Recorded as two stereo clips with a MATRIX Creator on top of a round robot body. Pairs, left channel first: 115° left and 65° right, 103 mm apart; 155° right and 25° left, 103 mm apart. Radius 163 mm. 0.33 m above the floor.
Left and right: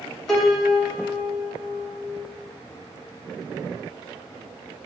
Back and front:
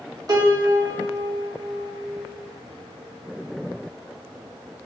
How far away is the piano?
About 1.1 m.